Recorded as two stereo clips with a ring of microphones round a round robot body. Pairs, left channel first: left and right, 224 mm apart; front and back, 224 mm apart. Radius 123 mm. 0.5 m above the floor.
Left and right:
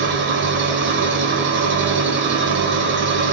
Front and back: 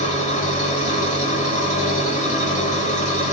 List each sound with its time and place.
0.0 s an engine running: 55° right, 1.3 m